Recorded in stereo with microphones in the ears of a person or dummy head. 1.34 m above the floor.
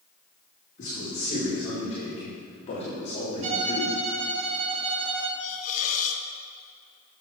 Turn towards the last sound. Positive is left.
turn(degrees=45)  # may be behind; listen again after turning